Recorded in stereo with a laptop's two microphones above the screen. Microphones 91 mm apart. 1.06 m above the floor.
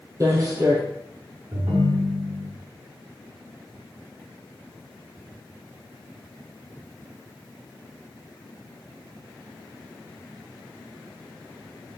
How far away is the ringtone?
About 1.0 m.